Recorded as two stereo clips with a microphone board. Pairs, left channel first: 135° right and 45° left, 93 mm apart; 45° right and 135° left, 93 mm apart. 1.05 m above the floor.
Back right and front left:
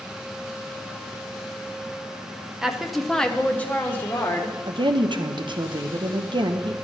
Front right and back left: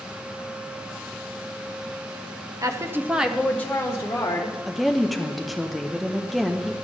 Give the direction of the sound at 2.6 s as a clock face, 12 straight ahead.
8 o'clock.